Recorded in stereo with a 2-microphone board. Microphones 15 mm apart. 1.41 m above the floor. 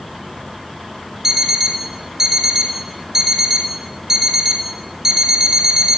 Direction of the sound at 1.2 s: 15° right (ahead or behind).